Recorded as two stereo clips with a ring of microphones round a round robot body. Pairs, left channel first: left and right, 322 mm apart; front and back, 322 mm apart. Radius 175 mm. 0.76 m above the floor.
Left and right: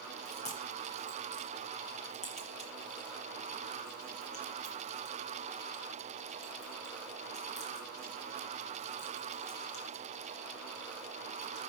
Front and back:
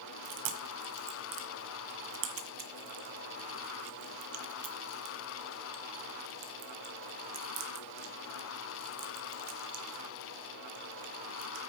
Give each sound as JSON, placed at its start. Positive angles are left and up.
{"t": 0.2, "sound": "chewing", "azimuth_deg": 160, "distance_m": 1.3}